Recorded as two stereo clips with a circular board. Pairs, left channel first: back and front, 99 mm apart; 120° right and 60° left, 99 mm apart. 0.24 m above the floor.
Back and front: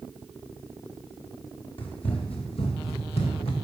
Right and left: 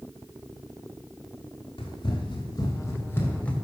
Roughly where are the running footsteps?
Behind right.